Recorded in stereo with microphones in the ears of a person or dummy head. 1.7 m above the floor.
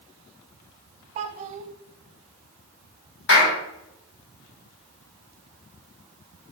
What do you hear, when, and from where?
1.1 s a child speaking: 50° right (ahead or behind), 0.8 m
3.3 s a clap: 70° left (ahead or behind), 5 m